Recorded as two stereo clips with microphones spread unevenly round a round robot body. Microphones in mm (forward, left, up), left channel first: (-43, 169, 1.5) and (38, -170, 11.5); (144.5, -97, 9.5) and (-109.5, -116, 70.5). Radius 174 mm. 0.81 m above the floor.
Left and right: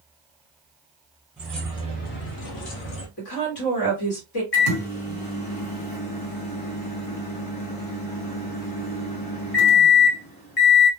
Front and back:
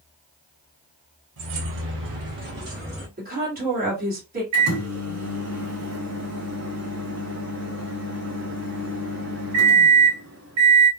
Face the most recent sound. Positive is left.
turn(degrees=135)